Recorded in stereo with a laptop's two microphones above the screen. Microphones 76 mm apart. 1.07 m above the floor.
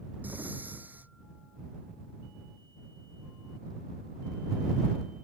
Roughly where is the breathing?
Right.